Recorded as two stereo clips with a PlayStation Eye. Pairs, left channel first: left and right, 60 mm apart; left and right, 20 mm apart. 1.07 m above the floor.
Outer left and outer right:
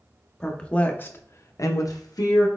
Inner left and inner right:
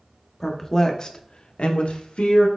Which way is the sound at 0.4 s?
15° left (ahead or behind).